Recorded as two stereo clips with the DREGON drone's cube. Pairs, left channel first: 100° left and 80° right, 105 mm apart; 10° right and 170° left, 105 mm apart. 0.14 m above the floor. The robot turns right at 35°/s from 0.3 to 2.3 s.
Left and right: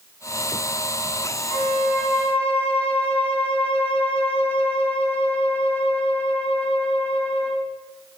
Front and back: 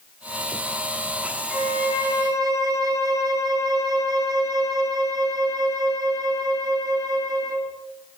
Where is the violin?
90° left, 4.5 m; by 7.8 s 115° left, 4.5 m.